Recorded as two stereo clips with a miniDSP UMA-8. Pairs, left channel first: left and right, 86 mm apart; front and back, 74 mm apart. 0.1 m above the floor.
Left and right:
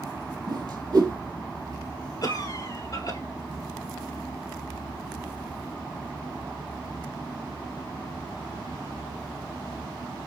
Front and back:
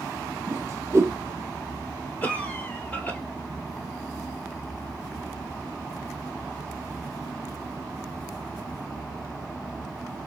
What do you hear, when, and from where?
0.5 s a whoosh: 130° right, 0.8 m
2.2 s a cough: 65° left, 1.9 m